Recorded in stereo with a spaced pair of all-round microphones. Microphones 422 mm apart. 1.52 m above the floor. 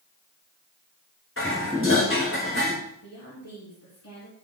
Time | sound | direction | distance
1.4 | dishes clattering | 30° left (ahead or behind) | 2.5 m
3.0 | a woman speaking | 40° left (ahead or behind) | 2.5 m